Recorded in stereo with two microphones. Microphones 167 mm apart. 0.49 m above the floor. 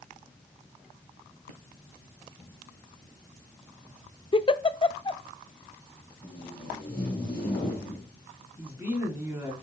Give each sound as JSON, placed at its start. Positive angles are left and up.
{"t": 4.3, "sound": "a giggle", "side_deg": 30, "distance_m": 0.5}
{"t": 6.2, "sound": "tape being pulled", "side_deg": 30, "distance_m": 4.5}
{"t": 8.6, "sound": "a woman speaking", "side_deg": -15, "distance_m": 4.5}